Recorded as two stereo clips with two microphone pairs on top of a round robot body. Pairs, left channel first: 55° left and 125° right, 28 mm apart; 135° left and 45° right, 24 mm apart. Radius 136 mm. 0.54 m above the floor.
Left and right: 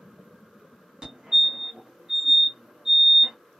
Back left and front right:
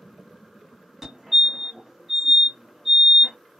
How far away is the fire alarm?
About 1.8 m.